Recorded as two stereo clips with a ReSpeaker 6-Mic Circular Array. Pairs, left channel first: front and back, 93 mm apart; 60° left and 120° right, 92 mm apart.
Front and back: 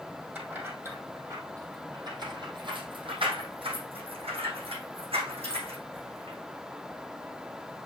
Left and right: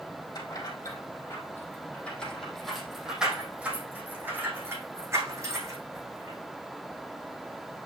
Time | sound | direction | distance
0.3 | keys jangling | 105° left | 3.5 m